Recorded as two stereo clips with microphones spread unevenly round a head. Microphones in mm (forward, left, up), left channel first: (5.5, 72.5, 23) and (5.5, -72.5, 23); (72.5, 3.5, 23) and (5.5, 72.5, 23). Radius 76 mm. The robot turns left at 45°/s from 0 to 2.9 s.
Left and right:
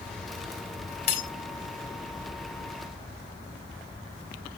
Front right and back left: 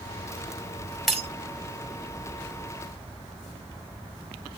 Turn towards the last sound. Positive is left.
turn(degrees=-40)